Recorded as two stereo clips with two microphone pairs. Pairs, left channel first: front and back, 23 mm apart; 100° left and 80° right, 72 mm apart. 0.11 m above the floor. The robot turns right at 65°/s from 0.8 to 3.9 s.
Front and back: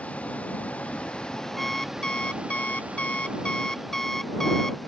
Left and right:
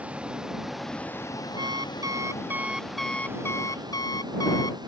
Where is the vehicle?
10° right; by 4.9 s 85° right.